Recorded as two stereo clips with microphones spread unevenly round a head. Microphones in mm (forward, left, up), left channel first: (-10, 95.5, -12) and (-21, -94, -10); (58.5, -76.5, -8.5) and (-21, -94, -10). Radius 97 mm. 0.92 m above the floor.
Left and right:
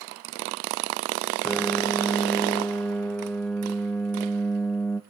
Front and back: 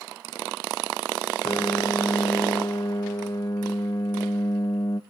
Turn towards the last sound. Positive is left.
turn(degrees=10)